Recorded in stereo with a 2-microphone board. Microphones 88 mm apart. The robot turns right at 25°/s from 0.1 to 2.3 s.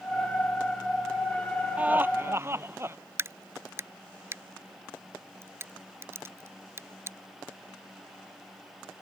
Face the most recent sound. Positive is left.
turn(degrees=-30)  # may be behind; listen again after turning